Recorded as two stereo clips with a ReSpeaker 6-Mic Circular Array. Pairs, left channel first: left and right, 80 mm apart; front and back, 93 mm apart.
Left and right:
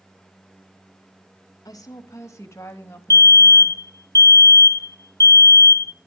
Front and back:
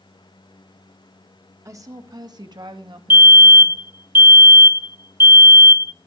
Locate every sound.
1.6 s a woman speaking: 125° left, 1.7 m; by 3.8 s 160° left, 2.5 m
3.1 s a fire alarm: 125° left, 0.6 m